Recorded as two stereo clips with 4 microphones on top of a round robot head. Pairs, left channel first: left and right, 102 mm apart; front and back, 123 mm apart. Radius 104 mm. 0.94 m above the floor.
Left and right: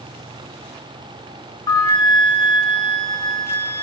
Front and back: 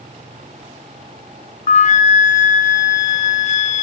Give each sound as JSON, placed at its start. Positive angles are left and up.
{"t": 1.7, "sound": "a flute", "azimuth_deg": 25, "distance_m": 0.5}